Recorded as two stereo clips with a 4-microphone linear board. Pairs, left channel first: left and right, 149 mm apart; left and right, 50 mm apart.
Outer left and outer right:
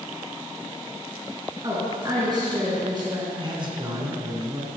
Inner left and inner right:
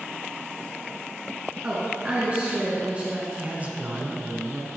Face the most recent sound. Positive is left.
turn(degrees=-30)  # may be behind; listen again after turning